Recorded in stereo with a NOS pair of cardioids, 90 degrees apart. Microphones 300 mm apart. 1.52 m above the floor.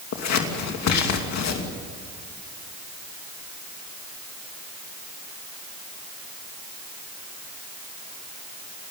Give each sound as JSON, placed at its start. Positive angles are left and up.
{"t": 0.1, "sound": "scissors", "azimuth_deg": 60, "distance_m": 3.0}